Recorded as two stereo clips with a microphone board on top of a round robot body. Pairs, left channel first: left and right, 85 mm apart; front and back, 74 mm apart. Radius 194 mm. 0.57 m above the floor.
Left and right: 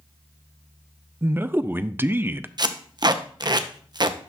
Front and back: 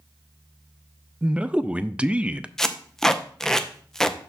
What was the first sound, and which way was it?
A man speaking, 120° right.